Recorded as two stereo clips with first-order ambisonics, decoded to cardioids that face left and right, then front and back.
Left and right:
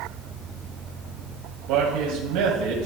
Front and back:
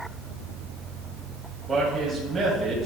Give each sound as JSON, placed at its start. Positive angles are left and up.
{"t": 1.7, "sound": "a man speaking", "azimuth_deg": -110, "distance_m": 2.5}